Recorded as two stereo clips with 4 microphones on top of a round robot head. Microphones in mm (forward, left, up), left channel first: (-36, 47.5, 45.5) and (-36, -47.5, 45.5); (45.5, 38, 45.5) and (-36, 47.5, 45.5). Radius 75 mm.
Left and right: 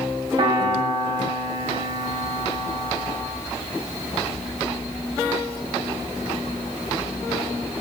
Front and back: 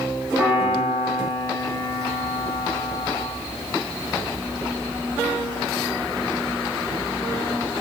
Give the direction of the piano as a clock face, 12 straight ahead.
4 o'clock.